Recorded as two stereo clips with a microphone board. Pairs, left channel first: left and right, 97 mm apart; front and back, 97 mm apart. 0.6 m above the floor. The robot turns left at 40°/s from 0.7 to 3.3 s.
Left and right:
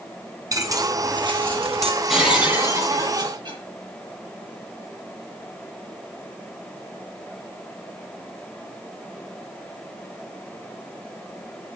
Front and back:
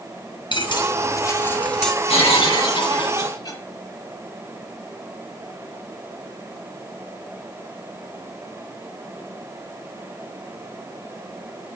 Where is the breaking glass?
5° right, 8.5 m; by 3.6 s 50° right, 8.5 m.